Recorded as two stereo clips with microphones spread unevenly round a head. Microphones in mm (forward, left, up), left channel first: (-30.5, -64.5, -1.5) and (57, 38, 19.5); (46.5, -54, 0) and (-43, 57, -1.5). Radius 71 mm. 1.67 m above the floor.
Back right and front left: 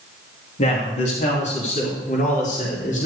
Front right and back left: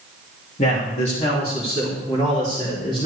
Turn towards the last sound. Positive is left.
turn(degrees=-105)